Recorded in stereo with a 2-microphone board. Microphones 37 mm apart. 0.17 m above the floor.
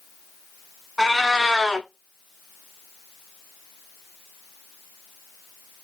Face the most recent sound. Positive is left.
turn(degrees=5)  # may be behind; listen again after turning